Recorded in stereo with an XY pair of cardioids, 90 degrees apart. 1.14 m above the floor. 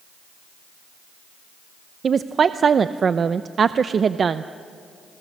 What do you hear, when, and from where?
2.0 s a woman speaking: 50° right, 0.6 m